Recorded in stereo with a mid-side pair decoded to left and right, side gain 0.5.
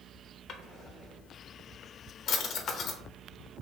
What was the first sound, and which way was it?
A drawer, 65° left.